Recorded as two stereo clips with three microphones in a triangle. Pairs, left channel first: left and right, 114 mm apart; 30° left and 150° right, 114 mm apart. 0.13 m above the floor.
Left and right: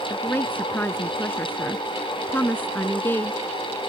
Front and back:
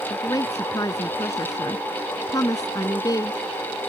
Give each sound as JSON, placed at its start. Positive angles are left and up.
{"t": 0.1, "sound": "a woman speaking", "azimuth_deg": 35}